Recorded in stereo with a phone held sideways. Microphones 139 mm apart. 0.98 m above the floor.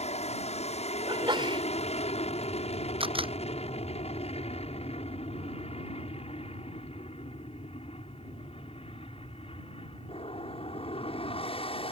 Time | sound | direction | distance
0.0 | an aircraft | 50° left (ahead or behind) | ?
1.1 | a sneeze | 35° right (ahead or behind) | ?
3.0 | a camera shutter | 40° right (ahead or behind) | ?